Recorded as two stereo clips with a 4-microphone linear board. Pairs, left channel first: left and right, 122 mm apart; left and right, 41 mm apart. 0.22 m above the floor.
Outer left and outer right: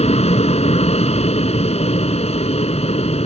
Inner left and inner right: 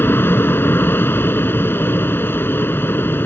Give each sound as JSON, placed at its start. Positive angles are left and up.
{"t": 0.0, "sound": "an aircraft", "side_deg": 60}